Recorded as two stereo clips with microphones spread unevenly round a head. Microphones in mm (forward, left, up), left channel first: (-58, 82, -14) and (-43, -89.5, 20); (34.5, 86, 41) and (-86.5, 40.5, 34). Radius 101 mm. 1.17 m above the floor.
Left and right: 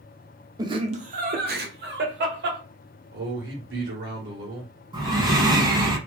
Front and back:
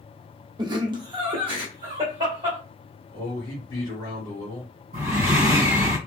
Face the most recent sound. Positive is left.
turn(degrees=-130)